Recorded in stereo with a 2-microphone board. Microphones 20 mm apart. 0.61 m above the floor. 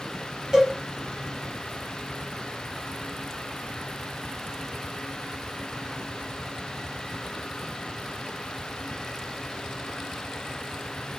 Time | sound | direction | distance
0.5 | a cowbell | 35° right (ahead or behind) | 1.8 m